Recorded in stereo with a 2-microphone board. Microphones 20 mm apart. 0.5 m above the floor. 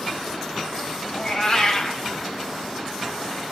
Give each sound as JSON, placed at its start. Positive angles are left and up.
{"t": 1.1, "sound": "a cat meowing", "side_deg": 35, "distance_m": 0.8}